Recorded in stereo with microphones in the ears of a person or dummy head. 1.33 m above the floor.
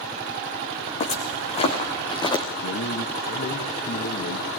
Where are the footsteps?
40° left (ahead or behind), 3.5 m; by 2.4 s 20° left (ahead or behind), 3.5 m.